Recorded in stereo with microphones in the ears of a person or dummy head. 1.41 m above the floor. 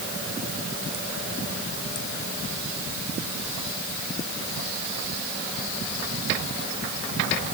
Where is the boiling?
No boiling in this recording.